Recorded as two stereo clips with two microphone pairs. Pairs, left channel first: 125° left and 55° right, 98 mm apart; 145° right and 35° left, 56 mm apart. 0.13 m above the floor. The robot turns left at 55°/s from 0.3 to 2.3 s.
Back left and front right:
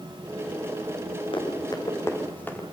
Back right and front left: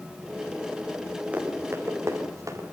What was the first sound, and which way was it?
Running footsteps, 100° left.